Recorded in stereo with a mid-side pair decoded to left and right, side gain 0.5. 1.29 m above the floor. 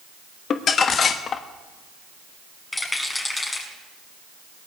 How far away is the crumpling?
About 1.2 m.